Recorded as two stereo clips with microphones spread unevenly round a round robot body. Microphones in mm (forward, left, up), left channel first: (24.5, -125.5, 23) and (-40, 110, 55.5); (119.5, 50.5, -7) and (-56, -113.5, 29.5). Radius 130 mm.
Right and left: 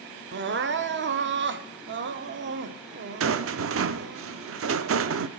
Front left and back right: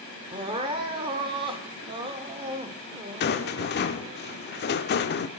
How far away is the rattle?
About 0.6 m.